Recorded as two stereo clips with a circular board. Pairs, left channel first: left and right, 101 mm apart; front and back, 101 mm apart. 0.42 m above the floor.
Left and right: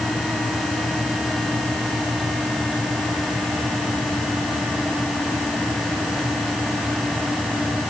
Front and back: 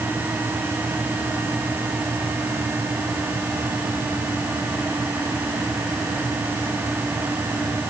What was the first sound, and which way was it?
Only background noise.